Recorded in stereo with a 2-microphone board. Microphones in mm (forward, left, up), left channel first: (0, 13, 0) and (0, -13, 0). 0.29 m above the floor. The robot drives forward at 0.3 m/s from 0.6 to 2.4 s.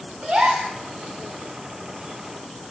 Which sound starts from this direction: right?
A gasp, at 0.2 s.